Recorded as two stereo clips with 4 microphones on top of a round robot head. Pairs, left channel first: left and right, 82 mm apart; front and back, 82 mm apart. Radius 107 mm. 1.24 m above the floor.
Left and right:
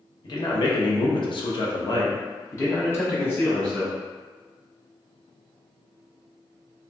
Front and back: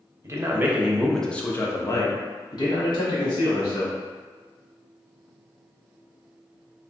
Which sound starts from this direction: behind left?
A man speaking, at 0.2 s.